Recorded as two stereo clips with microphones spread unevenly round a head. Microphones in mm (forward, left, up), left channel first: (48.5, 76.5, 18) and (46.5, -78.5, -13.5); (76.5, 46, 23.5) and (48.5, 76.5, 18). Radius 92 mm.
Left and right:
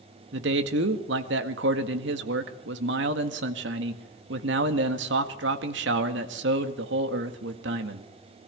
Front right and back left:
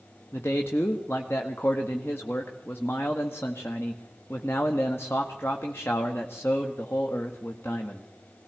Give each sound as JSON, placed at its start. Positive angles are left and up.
{"t": 0.3, "sound": "a man speaking", "azimuth_deg": -120, "distance_m": 1.7}